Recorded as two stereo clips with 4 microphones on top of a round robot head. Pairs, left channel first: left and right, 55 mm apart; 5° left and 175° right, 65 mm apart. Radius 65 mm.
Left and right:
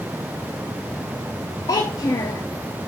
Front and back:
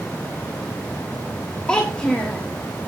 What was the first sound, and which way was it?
A child speaking, 85° left.